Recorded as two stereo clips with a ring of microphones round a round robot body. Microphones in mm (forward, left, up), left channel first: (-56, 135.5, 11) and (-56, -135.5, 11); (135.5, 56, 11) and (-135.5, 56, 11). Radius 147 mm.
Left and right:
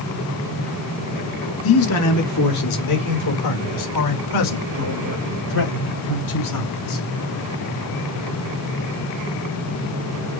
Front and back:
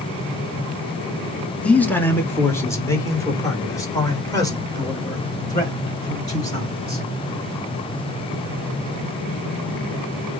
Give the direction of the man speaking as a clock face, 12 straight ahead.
9 o'clock.